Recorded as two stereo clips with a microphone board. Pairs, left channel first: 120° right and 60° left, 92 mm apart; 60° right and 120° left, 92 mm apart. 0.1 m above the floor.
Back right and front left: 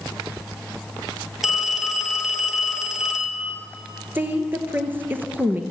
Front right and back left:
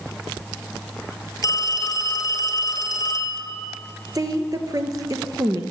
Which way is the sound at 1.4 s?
25° right.